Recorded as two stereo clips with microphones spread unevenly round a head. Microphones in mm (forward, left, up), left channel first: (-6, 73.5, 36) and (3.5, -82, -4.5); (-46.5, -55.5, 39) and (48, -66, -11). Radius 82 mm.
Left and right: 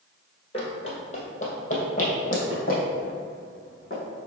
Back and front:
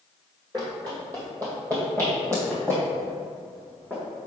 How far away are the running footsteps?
About 1.7 m.